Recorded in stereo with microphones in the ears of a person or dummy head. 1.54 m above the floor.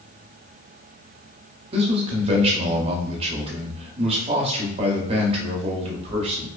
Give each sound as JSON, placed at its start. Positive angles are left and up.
{"t": 1.7, "sound": "a man speaking", "side_deg": -35, "distance_m": 0.7}